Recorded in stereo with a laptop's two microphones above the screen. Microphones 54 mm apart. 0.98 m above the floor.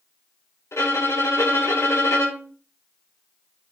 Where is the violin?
75° left (ahead or behind), 3.5 m.